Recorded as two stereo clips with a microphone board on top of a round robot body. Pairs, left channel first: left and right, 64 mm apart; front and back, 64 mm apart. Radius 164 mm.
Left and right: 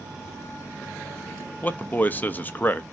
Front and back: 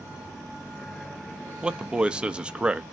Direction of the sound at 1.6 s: 120° left.